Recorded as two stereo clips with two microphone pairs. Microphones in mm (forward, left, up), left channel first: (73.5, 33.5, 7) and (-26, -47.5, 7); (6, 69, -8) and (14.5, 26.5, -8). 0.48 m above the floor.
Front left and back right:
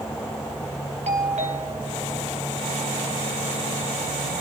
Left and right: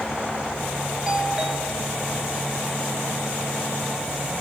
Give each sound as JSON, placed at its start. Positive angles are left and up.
{"t": 1.1, "sound": "a doorbell", "azimuth_deg": -155, "distance_m": 4.0}